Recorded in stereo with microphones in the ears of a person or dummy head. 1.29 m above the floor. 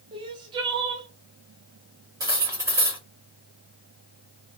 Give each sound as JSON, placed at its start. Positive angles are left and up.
{"t": 0.1, "sound": "crying", "side_deg": -25, "distance_m": 0.6}
{"t": 2.2, "sound": "cutlery clinking", "side_deg": -15, "distance_m": 1.0}